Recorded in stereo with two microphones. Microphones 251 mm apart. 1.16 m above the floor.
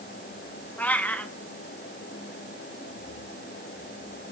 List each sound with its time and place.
0.8 s a cat meowing: 5° left (ahead or behind), 1.3 m